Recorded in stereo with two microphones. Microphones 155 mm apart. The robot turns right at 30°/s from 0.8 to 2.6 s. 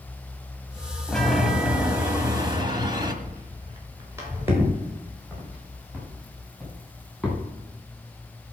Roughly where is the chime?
Behind.